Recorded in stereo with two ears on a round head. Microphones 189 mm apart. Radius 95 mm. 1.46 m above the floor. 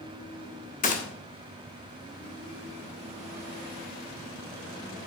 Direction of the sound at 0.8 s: 40° left (ahead or behind).